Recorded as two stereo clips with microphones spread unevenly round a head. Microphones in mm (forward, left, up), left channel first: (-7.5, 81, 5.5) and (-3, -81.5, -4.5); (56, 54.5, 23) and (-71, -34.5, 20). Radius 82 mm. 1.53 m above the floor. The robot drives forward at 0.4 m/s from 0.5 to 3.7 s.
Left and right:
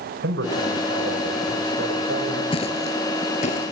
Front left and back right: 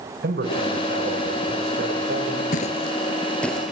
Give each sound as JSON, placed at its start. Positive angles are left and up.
{"t": 0.2, "sound": "a man speaking", "azimuth_deg": -110, "distance_m": 5.5}
{"t": 2.5, "sound": "footsteps", "azimuth_deg": 50, "distance_m": 2.0}